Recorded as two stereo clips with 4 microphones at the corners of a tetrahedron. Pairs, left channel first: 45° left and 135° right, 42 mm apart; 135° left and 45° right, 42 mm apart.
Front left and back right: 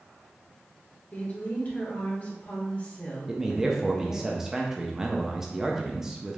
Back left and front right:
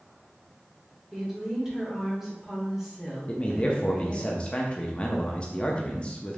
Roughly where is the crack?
I don't hear a crack.